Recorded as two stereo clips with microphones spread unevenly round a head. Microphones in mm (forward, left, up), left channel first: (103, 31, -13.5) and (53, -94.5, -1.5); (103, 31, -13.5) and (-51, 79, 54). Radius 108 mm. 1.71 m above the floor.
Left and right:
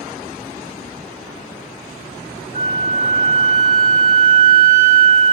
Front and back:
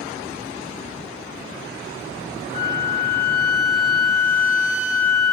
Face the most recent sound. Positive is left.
turn(degrees=125)